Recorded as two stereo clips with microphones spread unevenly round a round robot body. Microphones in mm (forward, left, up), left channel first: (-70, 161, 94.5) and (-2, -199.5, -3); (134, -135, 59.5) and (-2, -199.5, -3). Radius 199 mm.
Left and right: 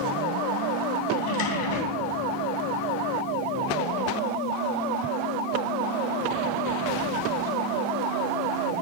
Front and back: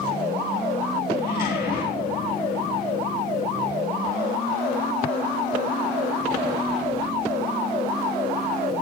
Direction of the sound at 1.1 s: 95° left.